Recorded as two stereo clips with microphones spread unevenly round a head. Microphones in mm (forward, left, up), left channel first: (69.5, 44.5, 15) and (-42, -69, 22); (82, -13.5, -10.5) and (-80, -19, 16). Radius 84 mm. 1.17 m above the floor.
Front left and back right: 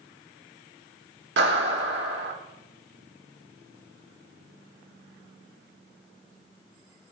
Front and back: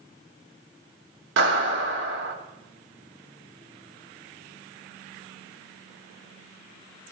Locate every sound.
1.4 s a clap: 160° right, 2 m